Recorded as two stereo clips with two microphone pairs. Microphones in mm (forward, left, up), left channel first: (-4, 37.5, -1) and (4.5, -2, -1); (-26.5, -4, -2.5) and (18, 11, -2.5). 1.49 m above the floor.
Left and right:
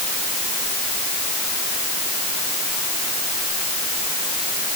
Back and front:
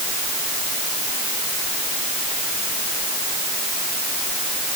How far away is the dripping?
No dripping in this recording.